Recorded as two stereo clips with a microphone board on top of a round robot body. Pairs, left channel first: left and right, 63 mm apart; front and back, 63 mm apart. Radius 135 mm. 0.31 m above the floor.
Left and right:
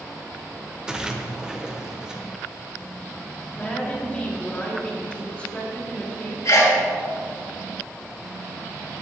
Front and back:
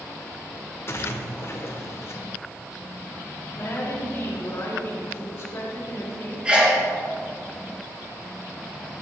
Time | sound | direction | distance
0.9 | a splash | 15° right | 1.1 m
3.5 | a woman speaking | 25° left | 2 m
6.5 | a sneeze | 110° left | 3.5 m